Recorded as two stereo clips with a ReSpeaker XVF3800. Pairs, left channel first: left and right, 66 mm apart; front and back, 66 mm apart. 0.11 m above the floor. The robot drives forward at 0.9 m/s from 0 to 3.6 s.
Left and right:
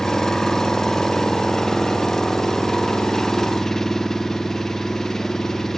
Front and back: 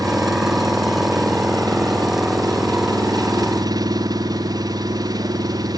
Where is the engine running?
170° left; by 5.8 s 175° left.